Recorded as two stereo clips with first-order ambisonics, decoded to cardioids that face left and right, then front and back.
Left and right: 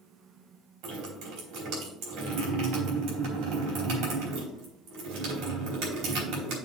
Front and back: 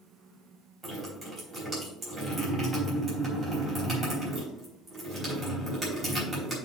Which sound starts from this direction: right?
Dripping, at 0.8 s.